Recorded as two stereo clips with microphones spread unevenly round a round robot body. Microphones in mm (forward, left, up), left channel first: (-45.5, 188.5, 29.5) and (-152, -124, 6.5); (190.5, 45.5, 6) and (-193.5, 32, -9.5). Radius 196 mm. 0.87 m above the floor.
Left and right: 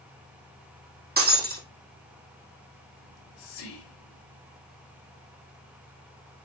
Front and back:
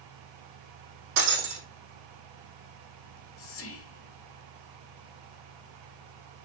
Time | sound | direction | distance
1.2 | breaking glass | 170° right | 3 m
3.0 | whispering | 60° left | 2.5 m